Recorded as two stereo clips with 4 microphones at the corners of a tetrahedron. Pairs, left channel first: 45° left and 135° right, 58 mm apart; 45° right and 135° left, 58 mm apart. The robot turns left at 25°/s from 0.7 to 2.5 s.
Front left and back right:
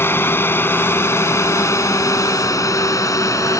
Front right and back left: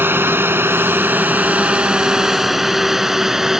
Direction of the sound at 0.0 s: 90° left.